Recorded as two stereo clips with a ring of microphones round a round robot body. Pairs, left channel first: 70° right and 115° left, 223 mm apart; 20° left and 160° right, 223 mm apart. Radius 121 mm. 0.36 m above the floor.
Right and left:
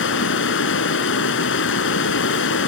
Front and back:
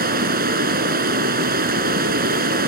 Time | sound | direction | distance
0.0 | running water | 105° right | 1.8 m